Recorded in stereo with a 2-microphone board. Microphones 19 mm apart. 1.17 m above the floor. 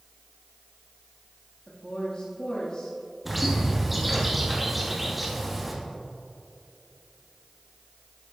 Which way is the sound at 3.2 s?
5° right (ahead or behind).